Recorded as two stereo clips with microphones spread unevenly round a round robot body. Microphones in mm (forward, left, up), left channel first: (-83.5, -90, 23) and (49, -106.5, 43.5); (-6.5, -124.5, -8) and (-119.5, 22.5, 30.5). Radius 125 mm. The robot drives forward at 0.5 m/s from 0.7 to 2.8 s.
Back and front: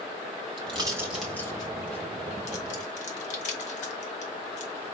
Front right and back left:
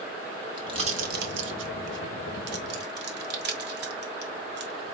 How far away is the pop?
About 0.5 m.